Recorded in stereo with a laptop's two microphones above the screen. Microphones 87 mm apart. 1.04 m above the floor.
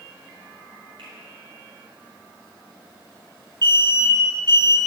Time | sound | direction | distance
1.0 | a finger snap | 80° right | 5 m
3.6 | an alarm | 60° right (ahead or behind) | 2.5 m